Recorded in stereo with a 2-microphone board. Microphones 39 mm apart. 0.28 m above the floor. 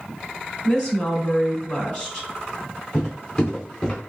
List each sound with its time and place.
0.6 s a woman speaking: 25° left (ahead or behind), 2.5 m
2.9 s footsteps: 25° left (ahead or behind), 2 m; by 4.0 s 15° left (ahead or behind), 2.5 m